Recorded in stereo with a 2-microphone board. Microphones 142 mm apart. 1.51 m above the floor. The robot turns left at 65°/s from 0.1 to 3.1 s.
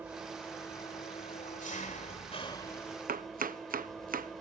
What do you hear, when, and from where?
0.0 s an engine running: 165° right, 2 m; by 4.4 s straight ahead, 2 m
3.1 s chopping: 80° right, 0.8 m